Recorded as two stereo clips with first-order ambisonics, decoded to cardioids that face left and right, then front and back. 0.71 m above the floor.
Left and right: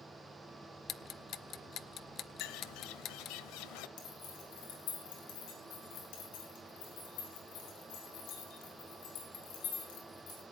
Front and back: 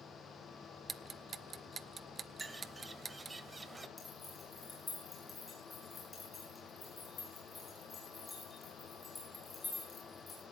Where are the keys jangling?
80° left, 7 m.